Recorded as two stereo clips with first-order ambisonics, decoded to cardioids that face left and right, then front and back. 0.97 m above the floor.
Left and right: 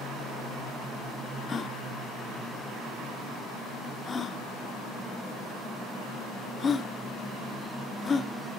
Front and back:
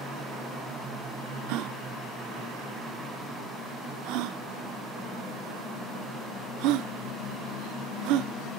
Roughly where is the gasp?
Behind.